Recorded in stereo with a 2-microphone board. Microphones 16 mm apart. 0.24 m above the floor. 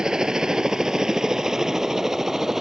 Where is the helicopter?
50° right (ahead or behind); by 2.6 s 35° right (ahead or behind).